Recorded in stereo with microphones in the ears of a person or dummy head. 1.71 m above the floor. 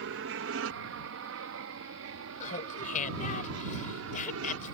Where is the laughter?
45° left (ahead or behind).